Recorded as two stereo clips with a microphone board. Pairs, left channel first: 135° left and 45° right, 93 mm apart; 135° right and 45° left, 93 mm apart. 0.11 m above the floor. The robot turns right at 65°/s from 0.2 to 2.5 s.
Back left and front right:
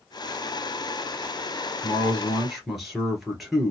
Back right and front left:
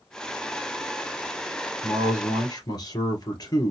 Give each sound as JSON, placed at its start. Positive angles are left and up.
{"t": 1.8, "sound": "a man speaking", "azimuth_deg": 180, "distance_m": 2.0}